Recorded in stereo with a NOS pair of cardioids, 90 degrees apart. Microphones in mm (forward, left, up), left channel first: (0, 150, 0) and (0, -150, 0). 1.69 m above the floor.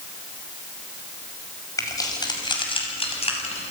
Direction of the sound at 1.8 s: 10° left.